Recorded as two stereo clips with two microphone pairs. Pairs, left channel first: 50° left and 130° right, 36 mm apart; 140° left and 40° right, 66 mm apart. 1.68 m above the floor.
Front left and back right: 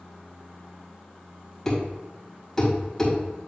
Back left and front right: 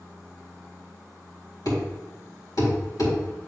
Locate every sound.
1.6 s a thud: 125° left, 3 m